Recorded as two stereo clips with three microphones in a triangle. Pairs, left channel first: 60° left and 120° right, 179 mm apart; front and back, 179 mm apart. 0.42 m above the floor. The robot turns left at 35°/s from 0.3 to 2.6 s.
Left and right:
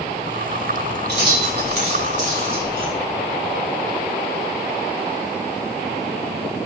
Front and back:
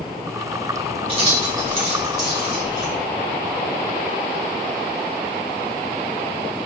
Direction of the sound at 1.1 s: 120° right.